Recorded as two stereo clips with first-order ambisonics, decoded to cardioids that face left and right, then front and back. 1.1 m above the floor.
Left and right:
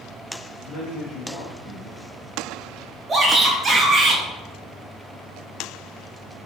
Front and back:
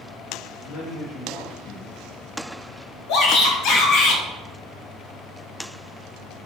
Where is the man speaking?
35° left, 0.7 m.